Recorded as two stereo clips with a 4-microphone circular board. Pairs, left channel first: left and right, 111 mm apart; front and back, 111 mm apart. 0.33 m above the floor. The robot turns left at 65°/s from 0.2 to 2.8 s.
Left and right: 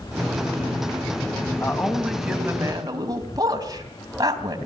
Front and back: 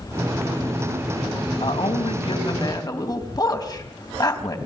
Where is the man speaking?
35° left, 3 m; by 4.6 s 45° right, 3 m.